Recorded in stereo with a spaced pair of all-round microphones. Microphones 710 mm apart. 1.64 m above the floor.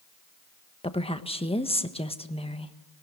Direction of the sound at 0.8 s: 10° left (ahead or behind).